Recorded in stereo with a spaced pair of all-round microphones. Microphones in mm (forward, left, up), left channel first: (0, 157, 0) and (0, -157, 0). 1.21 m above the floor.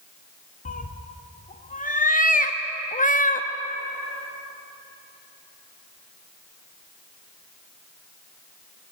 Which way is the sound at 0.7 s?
25° left (ahead or behind).